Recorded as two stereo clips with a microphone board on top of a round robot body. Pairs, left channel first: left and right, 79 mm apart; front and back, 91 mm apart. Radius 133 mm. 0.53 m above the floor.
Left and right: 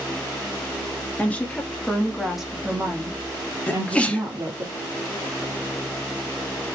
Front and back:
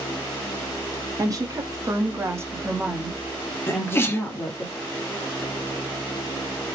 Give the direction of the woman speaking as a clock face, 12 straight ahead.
7 o'clock.